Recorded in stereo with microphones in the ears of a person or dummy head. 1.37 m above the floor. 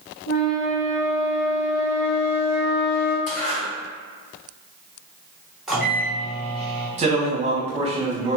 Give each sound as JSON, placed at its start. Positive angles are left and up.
{"t": 0.3, "sound": "a flute", "side_deg": 75, "distance_m": 1.2}
{"t": 3.3, "sound": "a zipper", "side_deg": 40, "distance_m": 1.4}
{"t": 5.7, "sound": "a microwave", "side_deg": -5, "distance_m": 0.6}
{"t": 7.0, "sound": "a man speaking", "side_deg": -35, "distance_m": 0.8}